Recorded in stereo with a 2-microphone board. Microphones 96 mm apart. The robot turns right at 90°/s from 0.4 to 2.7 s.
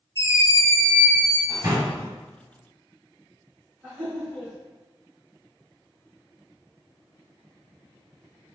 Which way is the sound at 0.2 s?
105° left.